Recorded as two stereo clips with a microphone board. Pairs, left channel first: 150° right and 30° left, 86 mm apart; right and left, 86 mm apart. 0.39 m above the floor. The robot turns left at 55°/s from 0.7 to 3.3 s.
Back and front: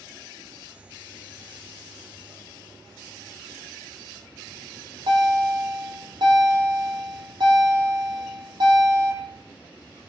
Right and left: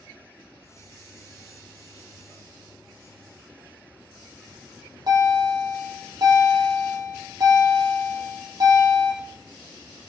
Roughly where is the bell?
Ahead left.